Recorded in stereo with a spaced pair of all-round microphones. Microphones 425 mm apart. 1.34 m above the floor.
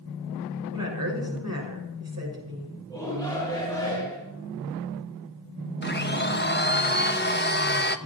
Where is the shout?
10° left (ahead or behind), 5.5 m.